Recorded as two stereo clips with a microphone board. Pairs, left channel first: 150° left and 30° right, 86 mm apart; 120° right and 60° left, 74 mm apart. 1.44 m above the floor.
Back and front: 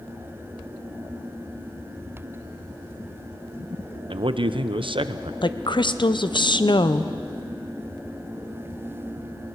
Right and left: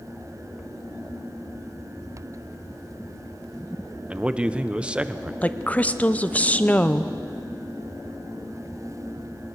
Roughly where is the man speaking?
Ahead.